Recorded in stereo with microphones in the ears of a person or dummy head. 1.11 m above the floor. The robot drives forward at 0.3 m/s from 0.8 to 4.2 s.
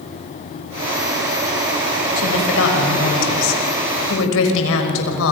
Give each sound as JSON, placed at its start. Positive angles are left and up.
{"t": 2.2, "sound": "a woman speaking", "side_deg": 75, "distance_m": 5.5}